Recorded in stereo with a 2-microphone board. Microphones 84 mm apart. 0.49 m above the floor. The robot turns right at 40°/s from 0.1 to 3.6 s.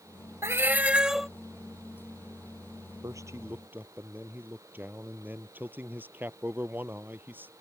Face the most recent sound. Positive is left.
turn(degrees=-25)  # may be behind; listen again after turning